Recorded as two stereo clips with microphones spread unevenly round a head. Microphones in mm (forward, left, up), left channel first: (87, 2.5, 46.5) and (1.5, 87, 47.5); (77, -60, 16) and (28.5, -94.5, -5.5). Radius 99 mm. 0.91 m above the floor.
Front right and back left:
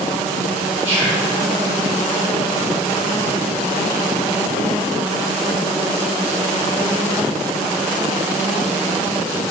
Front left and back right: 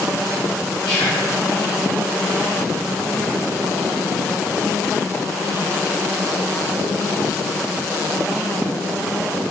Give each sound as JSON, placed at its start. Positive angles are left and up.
{"t": 0.8, "sound": "whispering", "azimuth_deg": 95, "distance_m": 4.5}